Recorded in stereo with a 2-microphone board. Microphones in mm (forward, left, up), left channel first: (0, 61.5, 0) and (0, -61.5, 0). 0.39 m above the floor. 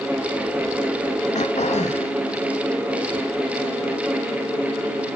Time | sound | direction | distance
1.4 | throat clearing | 65° left (ahead or behind) | 1.1 m